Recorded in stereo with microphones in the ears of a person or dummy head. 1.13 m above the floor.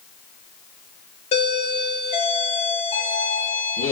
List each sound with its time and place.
1.3 s a doorbell: 40° left (ahead or behind), 1.4 m